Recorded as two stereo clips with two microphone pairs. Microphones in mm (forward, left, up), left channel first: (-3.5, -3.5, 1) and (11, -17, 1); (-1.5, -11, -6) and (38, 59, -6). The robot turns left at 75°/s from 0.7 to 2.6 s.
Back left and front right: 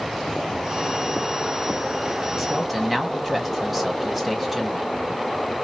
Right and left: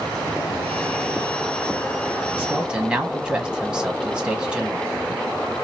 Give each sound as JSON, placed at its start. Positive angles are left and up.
{"t": 2.4, "sound": "a man speaking", "azimuth_deg": 30, "distance_m": 1.2}